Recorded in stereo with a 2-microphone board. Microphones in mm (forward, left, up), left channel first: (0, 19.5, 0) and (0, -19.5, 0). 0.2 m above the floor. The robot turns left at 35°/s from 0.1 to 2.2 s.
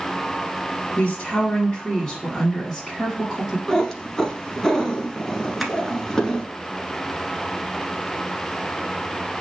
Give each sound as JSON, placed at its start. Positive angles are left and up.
{"t": 1.0, "sound": "a woman speaking", "azimuth_deg": 55, "distance_m": 1.6}
{"t": 3.7, "sound": "a cat meowing", "side_deg": 10, "distance_m": 1.1}
{"t": 5.6, "sound": "tapping", "side_deg": 0, "distance_m": 0.8}